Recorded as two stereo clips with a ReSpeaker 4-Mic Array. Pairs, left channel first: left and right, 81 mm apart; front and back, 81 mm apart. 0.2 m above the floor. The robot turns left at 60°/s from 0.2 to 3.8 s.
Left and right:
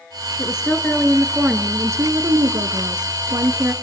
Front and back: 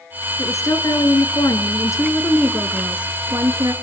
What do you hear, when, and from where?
0.4 s a woman speaking: 50° left, 2.5 m; by 3.7 s 150° right, 2.5 m